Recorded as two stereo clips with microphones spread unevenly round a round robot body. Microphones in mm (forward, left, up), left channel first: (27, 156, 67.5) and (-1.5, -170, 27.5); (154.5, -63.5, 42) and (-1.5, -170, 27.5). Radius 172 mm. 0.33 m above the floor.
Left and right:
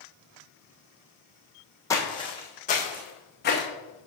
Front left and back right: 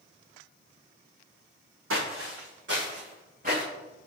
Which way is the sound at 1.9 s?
165° left.